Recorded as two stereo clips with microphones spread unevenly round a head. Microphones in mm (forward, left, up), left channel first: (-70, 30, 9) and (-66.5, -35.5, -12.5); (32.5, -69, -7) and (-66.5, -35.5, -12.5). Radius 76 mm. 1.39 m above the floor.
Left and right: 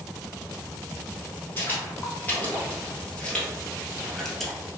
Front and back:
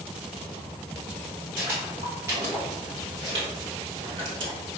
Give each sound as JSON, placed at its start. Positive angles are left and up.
{"t": 1.6, "sound": "footsteps", "azimuth_deg": 90, "distance_m": 2.0}